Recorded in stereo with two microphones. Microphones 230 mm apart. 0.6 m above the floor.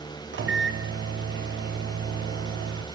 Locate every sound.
0.3 s a microwave: 55° right (ahead or behind), 0.6 m